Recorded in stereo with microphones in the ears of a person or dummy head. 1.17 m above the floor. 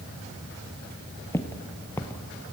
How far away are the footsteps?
About 1.3 m.